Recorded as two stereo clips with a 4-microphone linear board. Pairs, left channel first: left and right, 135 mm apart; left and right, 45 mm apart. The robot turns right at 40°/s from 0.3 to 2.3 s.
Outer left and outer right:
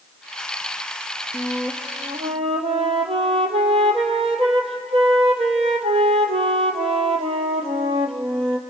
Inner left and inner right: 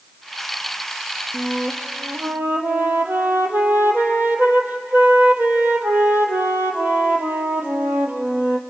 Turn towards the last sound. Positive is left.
turn(degrees=-130)